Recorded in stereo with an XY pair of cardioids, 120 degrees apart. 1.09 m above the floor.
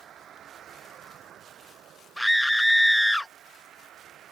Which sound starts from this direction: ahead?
A scream, at 2.2 s.